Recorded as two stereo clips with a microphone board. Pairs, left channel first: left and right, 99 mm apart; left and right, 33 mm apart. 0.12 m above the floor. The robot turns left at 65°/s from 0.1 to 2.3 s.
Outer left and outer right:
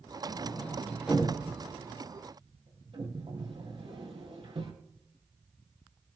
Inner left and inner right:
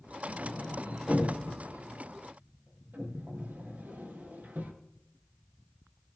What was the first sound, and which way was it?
A sliding door, 45° left (ahead or behind).